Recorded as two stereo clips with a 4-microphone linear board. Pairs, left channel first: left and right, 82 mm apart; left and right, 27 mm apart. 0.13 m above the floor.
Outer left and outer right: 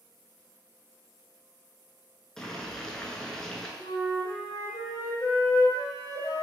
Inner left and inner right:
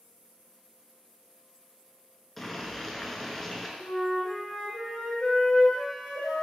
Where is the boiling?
5° left (ahead or behind), 0.5 m.